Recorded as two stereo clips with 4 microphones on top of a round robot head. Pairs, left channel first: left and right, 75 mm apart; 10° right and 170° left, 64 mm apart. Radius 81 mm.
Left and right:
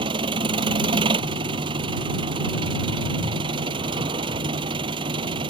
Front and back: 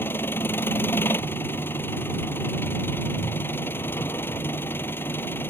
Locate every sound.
0.0 s an engine running: 70° right